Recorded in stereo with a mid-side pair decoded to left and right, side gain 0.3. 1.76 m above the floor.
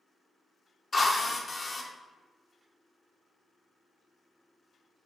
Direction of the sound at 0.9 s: 35° left.